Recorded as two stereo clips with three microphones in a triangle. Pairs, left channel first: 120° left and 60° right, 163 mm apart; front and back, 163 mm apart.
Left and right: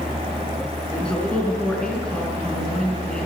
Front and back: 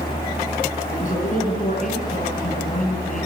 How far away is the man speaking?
About 4.5 m.